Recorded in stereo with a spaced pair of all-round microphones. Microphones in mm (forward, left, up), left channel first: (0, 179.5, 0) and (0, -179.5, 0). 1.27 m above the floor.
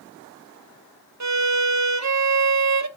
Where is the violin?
50° right (ahead or behind), 0.7 m.